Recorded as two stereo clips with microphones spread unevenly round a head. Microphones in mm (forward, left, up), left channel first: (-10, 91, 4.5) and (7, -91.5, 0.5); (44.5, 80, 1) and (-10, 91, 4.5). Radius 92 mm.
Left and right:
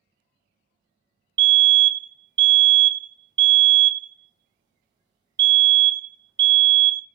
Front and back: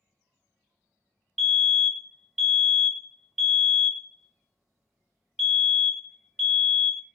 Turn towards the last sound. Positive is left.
turn(degrees=-95)